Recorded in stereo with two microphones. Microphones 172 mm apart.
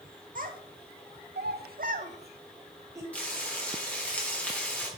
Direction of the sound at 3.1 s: 10° left (ahead or behind).